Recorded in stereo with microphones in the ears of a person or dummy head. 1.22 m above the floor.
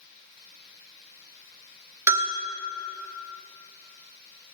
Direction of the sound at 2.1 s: 15° right (ahead or behind).